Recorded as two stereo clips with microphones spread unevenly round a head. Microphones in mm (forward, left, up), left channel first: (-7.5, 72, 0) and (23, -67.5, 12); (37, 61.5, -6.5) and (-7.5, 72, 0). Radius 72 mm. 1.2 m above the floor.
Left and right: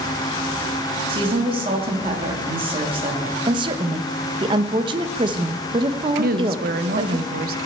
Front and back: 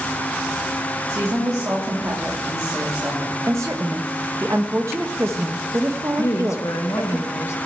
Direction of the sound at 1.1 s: 135° right.